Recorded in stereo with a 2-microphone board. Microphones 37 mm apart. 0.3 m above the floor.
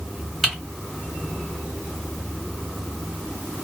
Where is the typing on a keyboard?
10° left (ahead or behind), 1.5 m.